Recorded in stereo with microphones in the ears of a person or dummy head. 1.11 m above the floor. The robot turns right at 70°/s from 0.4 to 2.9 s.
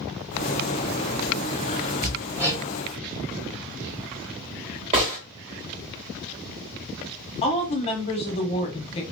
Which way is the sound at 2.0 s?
15° left (ahead or behind).